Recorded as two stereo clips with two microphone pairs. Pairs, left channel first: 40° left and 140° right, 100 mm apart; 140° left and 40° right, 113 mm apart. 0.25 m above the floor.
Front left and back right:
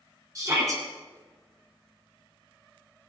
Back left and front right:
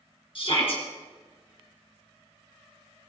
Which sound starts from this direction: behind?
A shout, at 0.3 s.